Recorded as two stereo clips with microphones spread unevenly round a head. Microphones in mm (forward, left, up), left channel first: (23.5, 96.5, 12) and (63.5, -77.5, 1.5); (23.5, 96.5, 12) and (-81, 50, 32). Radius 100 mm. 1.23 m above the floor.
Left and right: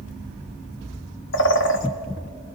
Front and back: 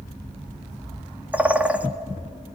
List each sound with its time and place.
1.3 s a bird: 130° left, 1.3 m